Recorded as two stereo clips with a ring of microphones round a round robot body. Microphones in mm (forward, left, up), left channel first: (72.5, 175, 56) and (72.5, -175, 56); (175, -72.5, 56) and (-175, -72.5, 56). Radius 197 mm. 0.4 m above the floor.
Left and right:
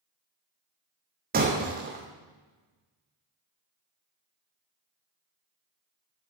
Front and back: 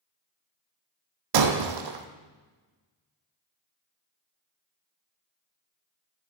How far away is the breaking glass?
About 1.3 m.